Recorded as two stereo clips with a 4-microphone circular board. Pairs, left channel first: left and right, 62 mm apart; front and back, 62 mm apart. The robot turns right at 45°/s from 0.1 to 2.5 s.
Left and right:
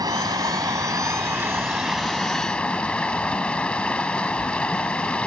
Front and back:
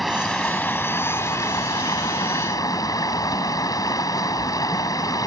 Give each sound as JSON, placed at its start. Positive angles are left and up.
{"t": 0.0, "sound": "running water", "azimuth_deg": -90}